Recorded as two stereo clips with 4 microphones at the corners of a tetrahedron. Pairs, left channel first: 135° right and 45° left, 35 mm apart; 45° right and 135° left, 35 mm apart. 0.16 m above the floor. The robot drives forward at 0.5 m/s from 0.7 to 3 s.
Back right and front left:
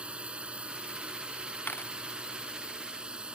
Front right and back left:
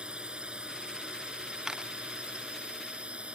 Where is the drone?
85° left; by 3.4 s 95° left.